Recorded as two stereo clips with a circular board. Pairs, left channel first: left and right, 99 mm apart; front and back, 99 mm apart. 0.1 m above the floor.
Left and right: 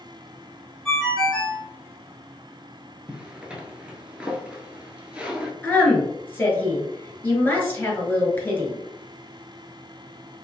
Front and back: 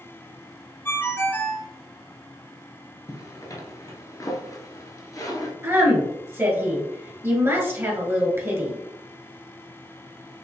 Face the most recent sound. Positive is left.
turn(degrees=140)